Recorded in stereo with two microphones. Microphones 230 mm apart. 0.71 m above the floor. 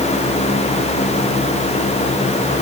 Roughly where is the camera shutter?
I don't hear a camera shutter.